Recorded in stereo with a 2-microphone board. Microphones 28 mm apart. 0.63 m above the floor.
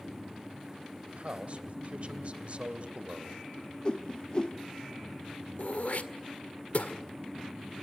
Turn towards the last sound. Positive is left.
turn(degrees=65)  # may be behind; listen again after turning